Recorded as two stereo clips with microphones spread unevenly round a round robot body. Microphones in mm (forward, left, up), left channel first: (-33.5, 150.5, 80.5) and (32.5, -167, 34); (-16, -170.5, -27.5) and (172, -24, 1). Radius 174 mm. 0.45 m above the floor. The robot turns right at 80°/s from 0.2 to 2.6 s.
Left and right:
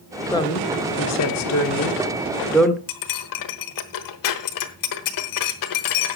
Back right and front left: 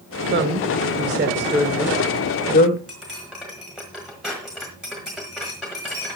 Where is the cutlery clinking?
130° left, 1.2 m.